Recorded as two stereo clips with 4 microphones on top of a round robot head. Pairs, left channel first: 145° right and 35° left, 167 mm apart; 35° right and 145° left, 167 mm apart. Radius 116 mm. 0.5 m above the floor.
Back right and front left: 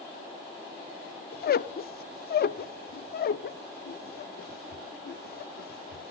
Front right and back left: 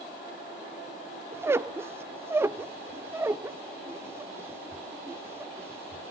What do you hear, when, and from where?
1.3 s a squeak: 140° right, 0.6 m